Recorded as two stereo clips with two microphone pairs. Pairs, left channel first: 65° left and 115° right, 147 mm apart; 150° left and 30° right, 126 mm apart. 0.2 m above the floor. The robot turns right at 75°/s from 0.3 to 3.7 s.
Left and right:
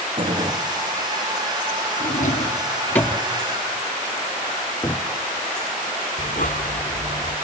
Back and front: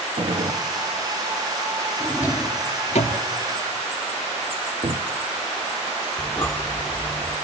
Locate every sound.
0.2 s a gunshot: 65° right, 1.5 m; by 0.6 s 40° right, 1.5 m
2.0 s a drawer: 70° left, 2 m; by 3.2 s 160° left, 2 m
4.8 s a cupboard door: straight ahead, 1.0 m
6.2 s breathing: 70° left, 1.7 m